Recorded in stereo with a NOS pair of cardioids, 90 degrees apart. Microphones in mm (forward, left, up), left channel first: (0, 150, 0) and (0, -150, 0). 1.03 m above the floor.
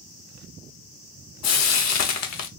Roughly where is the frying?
Ahead left.